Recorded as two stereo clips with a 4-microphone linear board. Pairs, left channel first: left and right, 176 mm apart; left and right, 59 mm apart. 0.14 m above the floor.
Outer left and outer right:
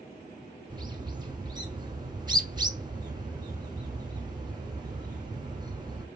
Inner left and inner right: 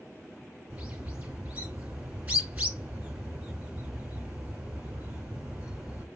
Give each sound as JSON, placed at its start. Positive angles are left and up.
{"t": 0.7, "sound": "a bird", "side_deg": -25, "distance_m": 1.1}